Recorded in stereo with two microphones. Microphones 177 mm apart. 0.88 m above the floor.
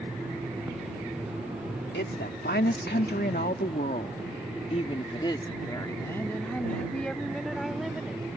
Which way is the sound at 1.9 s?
75° left (ahead or behind).